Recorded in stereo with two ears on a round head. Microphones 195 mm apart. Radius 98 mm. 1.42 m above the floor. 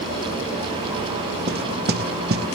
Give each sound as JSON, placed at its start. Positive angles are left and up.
{"t": 1.5, "sound": "knocking", "side_deg": -45, "distance_m": 0.8}